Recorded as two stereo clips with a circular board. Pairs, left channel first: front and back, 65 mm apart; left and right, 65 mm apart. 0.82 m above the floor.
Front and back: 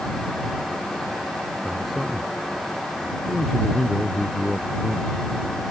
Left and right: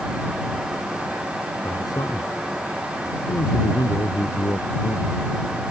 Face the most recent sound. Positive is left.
turn(degrees=90)